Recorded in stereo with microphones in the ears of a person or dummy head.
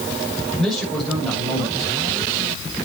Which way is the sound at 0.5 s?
5° left (ahead or behind).